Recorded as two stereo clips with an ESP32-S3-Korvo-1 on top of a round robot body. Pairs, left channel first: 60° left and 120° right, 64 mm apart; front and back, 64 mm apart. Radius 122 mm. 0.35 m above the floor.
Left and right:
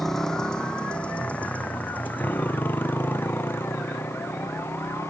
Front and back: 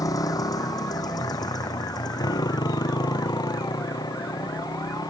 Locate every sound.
0.0 s a motorcycle: 25° right; by 5.1 s 5° left